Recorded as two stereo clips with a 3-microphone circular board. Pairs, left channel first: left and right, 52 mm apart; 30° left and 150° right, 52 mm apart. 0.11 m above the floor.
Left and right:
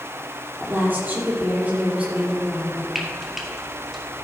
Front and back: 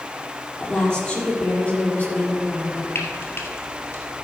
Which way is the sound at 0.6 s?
45° right.